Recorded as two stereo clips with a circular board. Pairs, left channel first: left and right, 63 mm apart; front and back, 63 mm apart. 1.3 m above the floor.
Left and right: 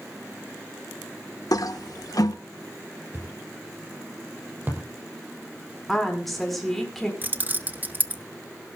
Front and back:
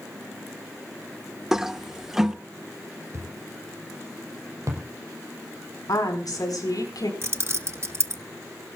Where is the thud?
145° right, 5.5 m.